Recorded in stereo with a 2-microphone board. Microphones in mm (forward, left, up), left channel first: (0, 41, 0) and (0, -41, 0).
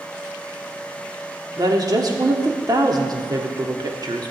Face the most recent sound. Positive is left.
turn(degrees=-50)  # may be behind; listen again after turning